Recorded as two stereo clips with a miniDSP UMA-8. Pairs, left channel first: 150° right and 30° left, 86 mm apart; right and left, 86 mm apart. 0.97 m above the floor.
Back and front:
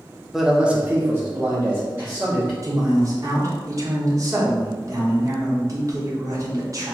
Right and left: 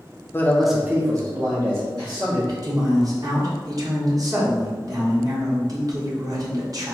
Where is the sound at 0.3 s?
55° right, 0.6 m; by 2.5 s 95° left, 1.6 m.